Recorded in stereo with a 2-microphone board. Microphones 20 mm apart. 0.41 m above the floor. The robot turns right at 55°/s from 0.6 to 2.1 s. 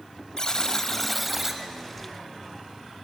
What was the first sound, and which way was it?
A buzzer, 145° left.